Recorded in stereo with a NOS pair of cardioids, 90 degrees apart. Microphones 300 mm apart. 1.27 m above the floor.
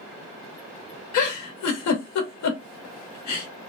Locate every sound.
1.1 s a giggle: 65° left, 1.2 m